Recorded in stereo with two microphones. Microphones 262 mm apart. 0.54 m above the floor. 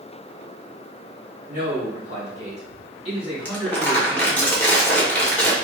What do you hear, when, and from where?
1.5 s a man speaking: 35° right (ahead or behind), 1.3 m; by 4.5 s 20° right (ahead or behind), 2.5 m
3.5 s crumpling: 5° left (ahead or behind), 0.9 m